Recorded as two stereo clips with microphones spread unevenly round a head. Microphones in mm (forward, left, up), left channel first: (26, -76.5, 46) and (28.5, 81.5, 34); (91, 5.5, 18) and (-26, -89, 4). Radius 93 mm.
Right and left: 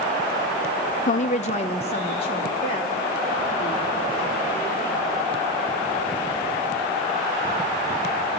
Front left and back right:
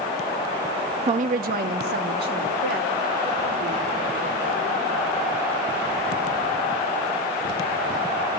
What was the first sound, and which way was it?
A woman speaking, 115° right.